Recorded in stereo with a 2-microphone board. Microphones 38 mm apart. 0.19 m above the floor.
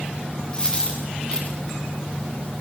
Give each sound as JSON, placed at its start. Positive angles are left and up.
{"t": 0.5, "sound": "a dropped coin", "side_deg": 25, "distance_m": 6.0}